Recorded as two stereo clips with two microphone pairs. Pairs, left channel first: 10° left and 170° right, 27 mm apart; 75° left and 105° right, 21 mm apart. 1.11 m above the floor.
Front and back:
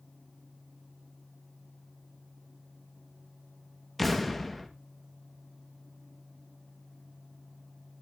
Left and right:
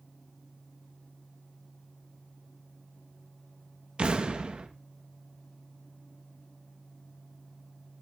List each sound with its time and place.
4.0 s an explosion: 75° right, 1.6 m